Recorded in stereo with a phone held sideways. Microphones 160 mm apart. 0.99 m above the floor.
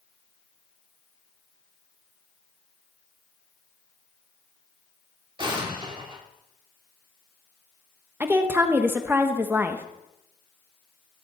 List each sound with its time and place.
5.4 s an explosion: 30° right (ahead or behind), 2 m
8.2 s a woman speaking: 15° right (ahead or behind), 1.0 m